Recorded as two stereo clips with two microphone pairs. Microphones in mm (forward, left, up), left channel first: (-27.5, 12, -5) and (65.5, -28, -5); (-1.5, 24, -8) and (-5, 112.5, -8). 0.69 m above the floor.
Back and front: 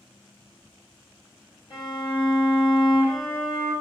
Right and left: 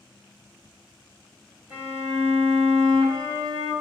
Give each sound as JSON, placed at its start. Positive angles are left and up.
{"t": 1.7, "sound": "a violin", "azimuth_deg": 140, "distance_m": 1.5}